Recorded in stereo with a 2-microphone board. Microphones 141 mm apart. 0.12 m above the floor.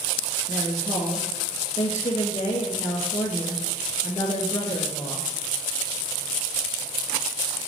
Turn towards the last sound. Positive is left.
turn(degrees=50)  # may be behind; listen again after turning